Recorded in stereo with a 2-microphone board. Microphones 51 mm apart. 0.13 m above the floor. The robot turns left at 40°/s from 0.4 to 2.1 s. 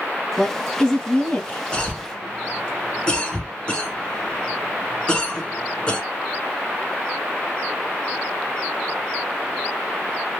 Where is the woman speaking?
5° left (ahead or behind), 1.3 m; by 1.6 s 25° left (ahead or behind), 1.3 m.